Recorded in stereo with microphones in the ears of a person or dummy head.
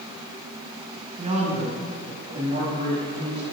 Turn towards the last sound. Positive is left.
turn(degrees=-40)  # may be behind; listen again after turning